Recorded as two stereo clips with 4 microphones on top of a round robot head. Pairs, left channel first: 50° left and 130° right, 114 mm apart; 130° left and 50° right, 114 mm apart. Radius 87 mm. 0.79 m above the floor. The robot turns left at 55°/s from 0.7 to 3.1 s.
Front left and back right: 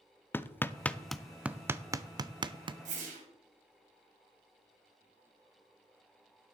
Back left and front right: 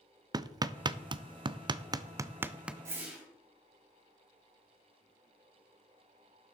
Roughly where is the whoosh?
Behind right.